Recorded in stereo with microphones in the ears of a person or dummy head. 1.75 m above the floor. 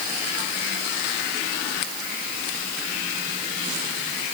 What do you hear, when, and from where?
Only background noise.